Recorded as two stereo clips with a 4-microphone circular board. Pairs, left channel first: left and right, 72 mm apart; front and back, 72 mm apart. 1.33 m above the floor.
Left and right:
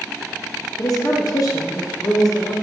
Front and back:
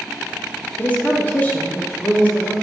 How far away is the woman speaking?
About 0.5 m.